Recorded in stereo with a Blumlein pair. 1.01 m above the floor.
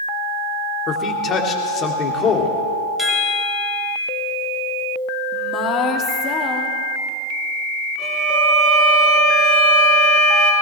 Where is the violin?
30° right, 2.5 m.